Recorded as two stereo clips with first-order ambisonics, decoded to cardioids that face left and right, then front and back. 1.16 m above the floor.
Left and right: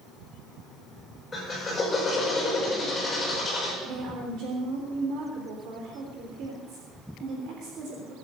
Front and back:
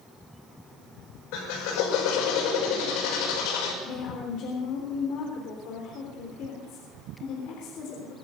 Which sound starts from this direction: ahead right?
A woman speaking, at 3.8 s.